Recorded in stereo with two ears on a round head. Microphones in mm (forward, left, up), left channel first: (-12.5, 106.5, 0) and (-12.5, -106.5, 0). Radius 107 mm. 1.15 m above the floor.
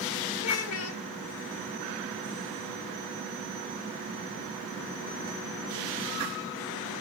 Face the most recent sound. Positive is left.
turn(degrees=70)  # may be behind; listen again after turning